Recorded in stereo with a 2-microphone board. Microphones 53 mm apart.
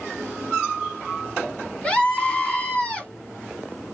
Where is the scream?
20° left (ahead or behind), 1.3 m.